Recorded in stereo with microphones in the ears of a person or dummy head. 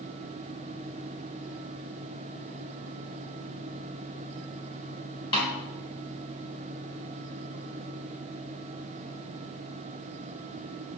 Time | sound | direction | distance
5.3 | a snare drum | 25° left (ahead or behind) | 1.6 m